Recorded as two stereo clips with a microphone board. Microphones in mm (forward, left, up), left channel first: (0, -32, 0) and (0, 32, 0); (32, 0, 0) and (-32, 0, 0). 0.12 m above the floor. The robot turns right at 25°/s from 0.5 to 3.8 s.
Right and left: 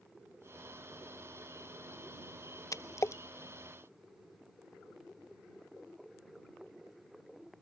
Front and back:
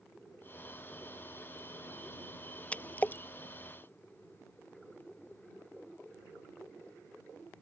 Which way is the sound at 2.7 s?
70° right.